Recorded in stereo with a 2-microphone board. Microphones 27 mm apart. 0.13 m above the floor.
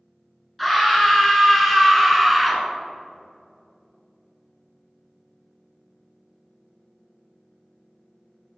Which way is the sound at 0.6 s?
Centre (ahead or behind).